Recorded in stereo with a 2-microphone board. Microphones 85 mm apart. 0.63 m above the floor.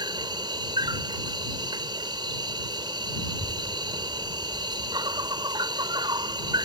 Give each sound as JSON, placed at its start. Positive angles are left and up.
{"t": 0.0, "sound": "an insect", "side_deg": -60}
{"t": 3.2, "sound": "a child speaking", "side_deg": 85}